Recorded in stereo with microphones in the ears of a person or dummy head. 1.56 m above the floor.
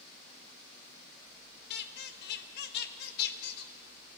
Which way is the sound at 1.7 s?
65° left (ahead or behind).